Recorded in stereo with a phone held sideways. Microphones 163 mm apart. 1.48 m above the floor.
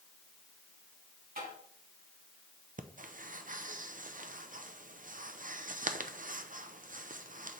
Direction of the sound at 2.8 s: 55° right (ahead or behind).